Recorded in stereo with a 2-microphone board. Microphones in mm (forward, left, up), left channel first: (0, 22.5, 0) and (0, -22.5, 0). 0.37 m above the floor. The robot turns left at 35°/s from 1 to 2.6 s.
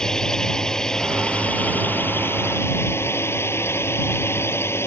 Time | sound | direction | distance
0.0 | a drone | 165° left | ?